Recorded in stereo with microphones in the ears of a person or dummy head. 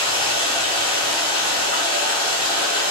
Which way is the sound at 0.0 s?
20° left (ahead or behind).